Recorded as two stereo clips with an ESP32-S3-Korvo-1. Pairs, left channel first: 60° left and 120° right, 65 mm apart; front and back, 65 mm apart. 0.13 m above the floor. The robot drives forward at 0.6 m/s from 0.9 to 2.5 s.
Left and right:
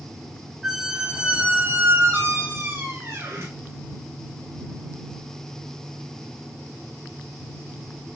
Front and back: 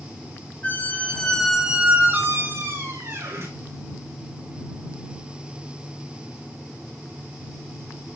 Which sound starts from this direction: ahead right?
A squeak, at 0.6 s.